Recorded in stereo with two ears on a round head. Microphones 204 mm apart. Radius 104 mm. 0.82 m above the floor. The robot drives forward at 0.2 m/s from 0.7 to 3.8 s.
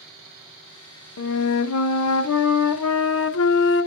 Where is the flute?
70° left (ahead or behind), 0.6 m; by 3.9 s 55° left (ahead or behind), 0.7 m.